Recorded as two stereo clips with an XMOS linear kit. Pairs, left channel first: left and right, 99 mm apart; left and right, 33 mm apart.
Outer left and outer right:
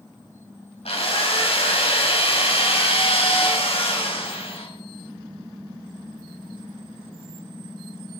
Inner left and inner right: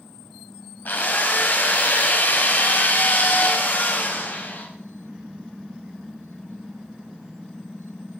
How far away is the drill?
About 4 m.